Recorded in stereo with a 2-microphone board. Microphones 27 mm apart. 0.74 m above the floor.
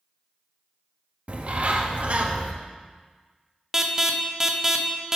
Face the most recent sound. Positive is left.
turn(degrees=-20)  # may be behind; listen again after turning